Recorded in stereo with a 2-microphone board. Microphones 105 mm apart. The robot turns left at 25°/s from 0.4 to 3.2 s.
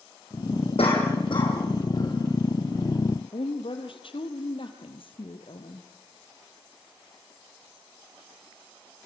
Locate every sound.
0.8 s a cough: 65° left (ahead or behind), 7 m; by 2.2 s 35° left (ahead or behind), 7 m
3.3 s a woman speaking: 55° left (ahead or behind), 2.5 m